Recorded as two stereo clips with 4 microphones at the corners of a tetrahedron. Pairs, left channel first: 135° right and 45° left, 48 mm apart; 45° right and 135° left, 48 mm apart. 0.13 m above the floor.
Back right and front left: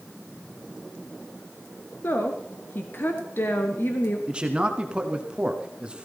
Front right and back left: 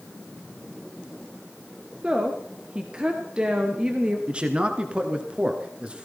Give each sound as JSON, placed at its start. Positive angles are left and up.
{"t": 2.0, "sound": "a woman speaking", "azimuth_deg": -160, "distance_m": 1.8}
{"t": 4.3, "sound": "a man speaking", "azimuth_deg": 90, "distance_m": 1.7}